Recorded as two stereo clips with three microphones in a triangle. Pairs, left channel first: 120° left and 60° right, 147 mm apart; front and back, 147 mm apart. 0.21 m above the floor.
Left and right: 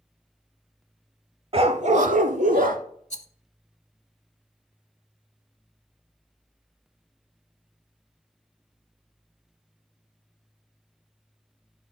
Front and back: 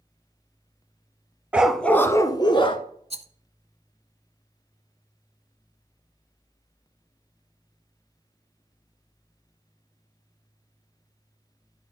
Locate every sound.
1.5 s a dog barking: 100° right, 0.6 m; by 2.8 s 50° right, 0.9 m
3.1 s a rattle: 145° left, 0.6 m